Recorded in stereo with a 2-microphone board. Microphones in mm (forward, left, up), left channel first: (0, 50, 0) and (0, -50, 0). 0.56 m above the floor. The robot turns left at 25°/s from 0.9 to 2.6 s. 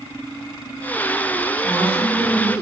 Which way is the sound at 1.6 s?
50° right (ahead or behind).